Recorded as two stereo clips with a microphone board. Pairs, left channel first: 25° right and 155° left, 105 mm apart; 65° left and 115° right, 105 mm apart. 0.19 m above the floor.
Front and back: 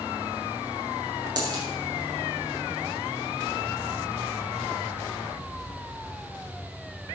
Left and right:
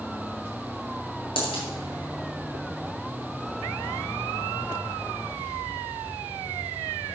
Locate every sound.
1.4 s a dropped coin: 105° left, 5 m